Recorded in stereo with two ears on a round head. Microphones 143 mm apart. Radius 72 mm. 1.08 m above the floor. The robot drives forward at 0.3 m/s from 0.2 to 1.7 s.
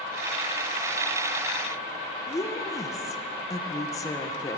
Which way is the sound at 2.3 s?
20° left (ahead or behind).